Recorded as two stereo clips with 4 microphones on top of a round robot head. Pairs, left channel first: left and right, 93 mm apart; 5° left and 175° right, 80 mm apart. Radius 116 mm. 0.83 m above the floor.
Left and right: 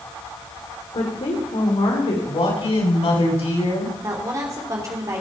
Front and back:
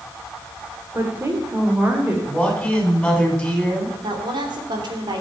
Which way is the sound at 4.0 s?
150° right.